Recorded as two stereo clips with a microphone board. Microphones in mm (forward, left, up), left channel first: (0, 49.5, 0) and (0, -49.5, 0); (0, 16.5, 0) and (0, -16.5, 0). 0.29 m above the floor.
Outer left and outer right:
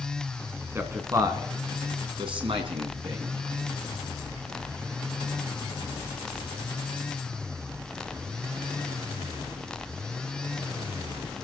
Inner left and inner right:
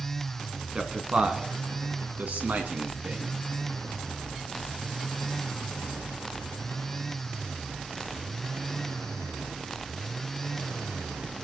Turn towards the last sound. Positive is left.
turn(degrees=-70)  # may be behind; listen again after turning